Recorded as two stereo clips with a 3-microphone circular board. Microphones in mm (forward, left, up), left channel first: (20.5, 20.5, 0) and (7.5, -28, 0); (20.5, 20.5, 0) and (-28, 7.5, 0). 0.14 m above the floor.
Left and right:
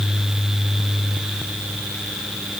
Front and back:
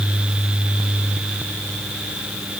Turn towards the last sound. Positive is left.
No sound to turn to.